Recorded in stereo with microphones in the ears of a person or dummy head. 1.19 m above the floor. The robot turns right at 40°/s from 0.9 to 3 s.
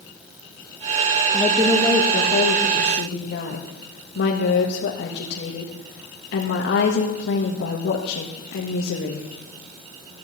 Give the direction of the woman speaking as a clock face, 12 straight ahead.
12 o'clock.